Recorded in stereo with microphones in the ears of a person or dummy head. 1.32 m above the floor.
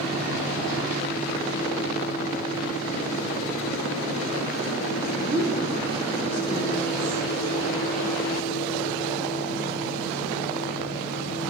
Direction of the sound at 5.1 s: 20° right (ahead or behind).